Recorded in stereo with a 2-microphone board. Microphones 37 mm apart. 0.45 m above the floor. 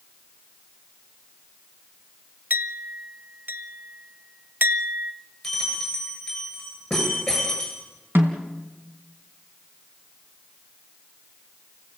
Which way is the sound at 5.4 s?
5° left (ahead or behind).